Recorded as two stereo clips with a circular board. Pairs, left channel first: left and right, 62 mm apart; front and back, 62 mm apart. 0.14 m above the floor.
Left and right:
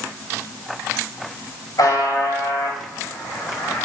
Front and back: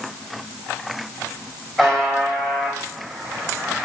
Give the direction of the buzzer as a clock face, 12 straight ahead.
9 o'clock.